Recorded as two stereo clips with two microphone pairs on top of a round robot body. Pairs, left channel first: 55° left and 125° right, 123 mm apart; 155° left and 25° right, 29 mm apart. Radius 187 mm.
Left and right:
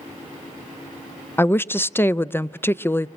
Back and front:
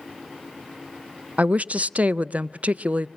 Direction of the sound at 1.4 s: 15° right.